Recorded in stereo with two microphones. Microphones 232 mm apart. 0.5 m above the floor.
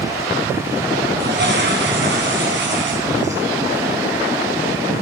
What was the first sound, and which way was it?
A toilet flushing, 50° right (ahead or behind).